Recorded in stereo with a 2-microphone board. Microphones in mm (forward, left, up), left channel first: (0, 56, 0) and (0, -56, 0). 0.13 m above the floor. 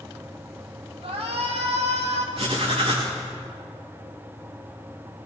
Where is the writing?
50° right (ahead or behind), 7 m.